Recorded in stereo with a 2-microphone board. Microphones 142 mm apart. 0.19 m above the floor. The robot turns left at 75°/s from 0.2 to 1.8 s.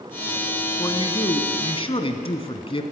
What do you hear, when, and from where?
0.8 s a man speaking: 145° left, 1.3 m; by 2.8 s 65° left, 1.3 m